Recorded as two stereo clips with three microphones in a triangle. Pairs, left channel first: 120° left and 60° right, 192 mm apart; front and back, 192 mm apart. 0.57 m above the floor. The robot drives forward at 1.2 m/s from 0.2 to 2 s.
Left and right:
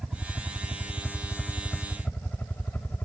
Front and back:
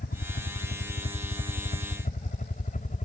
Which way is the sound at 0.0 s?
30° left.